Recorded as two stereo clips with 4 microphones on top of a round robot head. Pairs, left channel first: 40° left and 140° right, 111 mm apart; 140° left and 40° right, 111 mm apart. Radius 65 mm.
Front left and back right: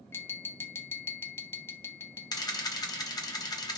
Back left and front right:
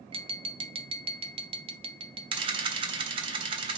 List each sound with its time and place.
0.1 s tapping: 25° right, 0.7 m
2.3 s a camera shutter: 10° right, 1.3 m